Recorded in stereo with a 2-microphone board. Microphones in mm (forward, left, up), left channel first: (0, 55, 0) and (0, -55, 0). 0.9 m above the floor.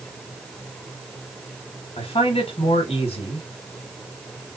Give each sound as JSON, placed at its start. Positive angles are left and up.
{"t": 2.0, "sound": "a man speaking", "side_deg": 65, "distance_m": 1.4}